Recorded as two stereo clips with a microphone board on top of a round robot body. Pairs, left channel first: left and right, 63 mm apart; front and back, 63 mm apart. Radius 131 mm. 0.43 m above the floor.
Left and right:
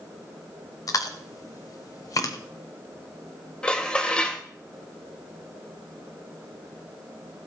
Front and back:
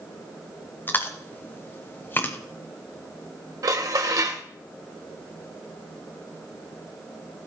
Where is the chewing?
60° left, 1.0 m.